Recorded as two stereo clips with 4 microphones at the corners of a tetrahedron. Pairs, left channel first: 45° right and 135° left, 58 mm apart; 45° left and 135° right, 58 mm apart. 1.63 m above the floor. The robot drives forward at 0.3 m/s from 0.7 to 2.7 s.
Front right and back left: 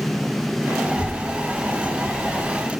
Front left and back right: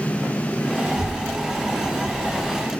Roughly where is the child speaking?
Behind.